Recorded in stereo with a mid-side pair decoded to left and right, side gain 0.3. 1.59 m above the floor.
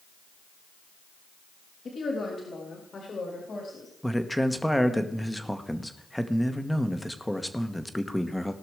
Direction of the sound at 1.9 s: 65° left.